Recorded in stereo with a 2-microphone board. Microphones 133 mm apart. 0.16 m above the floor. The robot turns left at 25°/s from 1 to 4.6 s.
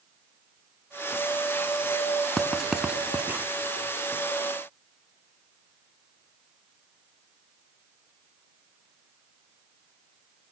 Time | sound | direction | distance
2.4 | writing | 5° left (ahead or behind) | 1.5 m